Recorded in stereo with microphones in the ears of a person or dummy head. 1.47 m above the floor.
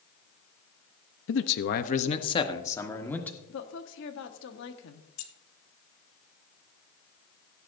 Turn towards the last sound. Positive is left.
turn(degrees=75)  # may be behind; listen again after turning